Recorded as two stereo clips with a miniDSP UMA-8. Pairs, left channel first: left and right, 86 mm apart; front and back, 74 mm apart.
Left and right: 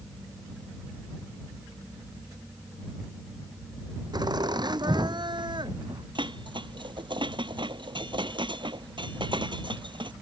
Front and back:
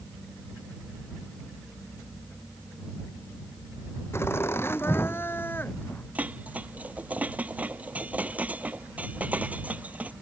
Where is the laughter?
55° right; by 6.0 s 65° right.